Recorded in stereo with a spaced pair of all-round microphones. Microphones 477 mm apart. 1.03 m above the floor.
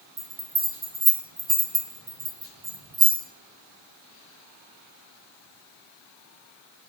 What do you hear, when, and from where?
0.2 s a bell: 80° right, 5.5 m